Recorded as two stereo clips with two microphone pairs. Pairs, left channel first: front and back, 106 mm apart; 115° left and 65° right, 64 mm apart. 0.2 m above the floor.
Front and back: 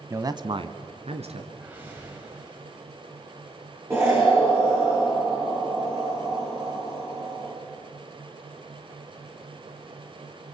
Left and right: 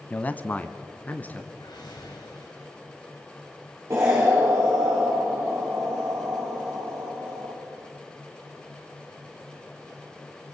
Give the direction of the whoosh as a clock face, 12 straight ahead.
8 o'clock.